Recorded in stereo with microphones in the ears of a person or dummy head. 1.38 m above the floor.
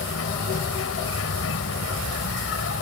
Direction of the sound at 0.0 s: 70° left (ahead or behind).